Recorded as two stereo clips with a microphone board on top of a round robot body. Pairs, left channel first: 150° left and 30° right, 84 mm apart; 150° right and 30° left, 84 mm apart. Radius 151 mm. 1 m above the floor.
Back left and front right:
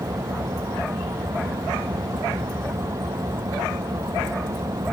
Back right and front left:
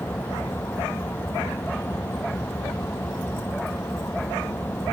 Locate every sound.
0.0 s an engine running: 80° right